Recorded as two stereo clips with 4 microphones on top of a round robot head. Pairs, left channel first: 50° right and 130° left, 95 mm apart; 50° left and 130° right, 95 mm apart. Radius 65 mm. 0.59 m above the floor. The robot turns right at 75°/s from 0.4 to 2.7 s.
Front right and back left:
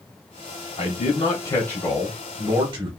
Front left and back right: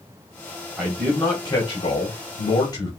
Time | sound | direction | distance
0.8 | a man speaking | 60° right | 2.0 m